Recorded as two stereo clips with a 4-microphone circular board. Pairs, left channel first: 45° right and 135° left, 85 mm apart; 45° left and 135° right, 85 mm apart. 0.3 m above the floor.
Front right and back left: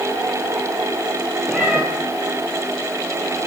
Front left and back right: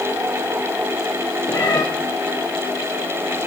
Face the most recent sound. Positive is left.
turn(degrees=65)